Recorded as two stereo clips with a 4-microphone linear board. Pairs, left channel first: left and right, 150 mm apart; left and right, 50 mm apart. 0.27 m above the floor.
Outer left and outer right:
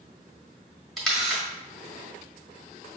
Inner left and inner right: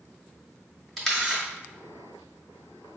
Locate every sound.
1.0 s a camera shutter: 5° left (ahead or behind), 1.5 m